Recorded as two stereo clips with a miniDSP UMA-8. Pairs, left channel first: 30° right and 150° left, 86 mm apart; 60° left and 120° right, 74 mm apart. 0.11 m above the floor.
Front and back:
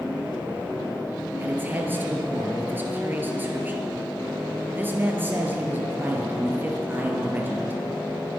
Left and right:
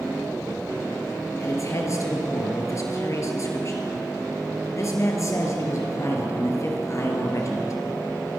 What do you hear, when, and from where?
1.4 s a man speaking: 90° left, 2.5 m